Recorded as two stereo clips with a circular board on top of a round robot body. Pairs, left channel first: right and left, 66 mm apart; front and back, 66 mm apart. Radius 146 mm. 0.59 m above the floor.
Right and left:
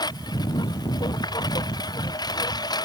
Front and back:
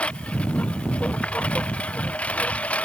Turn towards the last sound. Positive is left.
turn(degrees=-70)